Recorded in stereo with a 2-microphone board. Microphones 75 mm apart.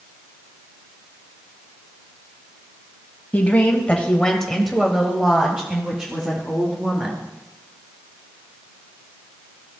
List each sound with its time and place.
3.3 s a woman speaking: 20° left (ahead or behind), 1.8 m; by 7.3 s 20° right (ahead or behind), 3.5 m